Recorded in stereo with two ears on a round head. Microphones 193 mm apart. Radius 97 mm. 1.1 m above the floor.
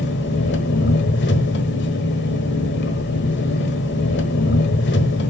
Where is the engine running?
55° left (ahead or behind), 1.4 m.